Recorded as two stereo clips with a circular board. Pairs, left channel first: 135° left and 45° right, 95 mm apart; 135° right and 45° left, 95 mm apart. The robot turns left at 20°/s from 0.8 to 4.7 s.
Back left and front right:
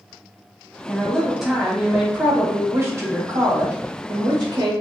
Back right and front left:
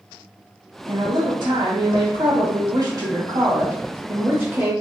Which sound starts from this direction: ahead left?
A woman speaking, at 0.9 s.